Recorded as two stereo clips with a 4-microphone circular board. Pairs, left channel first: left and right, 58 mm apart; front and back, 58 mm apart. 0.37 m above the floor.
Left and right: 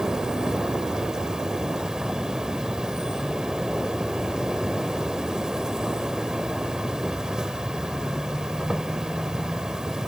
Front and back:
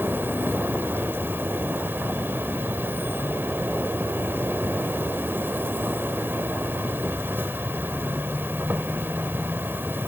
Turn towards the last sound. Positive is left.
turn(degrees=-165)